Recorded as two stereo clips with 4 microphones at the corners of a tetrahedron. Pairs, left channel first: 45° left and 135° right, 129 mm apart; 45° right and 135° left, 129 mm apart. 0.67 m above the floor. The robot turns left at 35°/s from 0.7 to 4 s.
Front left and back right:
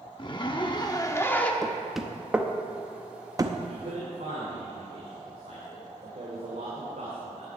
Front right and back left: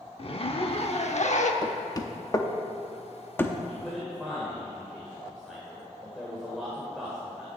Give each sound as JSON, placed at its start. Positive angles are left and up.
{"t": 0.2, "sound": "a zipper", "azimuth_deg": -5, "distance_m": 0.8}
{"t": 1.6, "sound": "knocking", "azimuth_deg": -35, "distance_m": 0.7}
{"t": 3.7, "sound": "a man speaking", "azimuth_deg": -125, "distance_m": 2.0}